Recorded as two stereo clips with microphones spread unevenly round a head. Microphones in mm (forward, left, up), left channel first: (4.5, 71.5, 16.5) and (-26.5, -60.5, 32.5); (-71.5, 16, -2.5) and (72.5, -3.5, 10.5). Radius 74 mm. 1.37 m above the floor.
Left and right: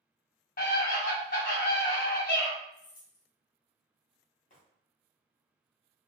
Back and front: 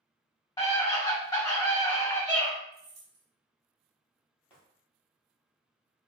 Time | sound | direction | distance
0.6 | a scream | 105° left | 1.7 m
2.7 | keys jangling | 40° left | 0.8 m
4.5 | footsteps | 95° left | 2.0 m